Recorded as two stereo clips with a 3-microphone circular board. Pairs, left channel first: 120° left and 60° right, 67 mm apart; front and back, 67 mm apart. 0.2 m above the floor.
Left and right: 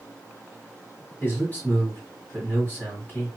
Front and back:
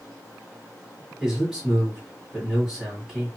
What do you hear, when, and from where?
1.2 s a man speaking: 110° left, 1.8 m